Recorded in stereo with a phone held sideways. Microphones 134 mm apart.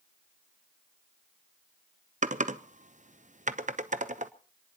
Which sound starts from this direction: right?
Typing on a keyboard, at 2.2 s.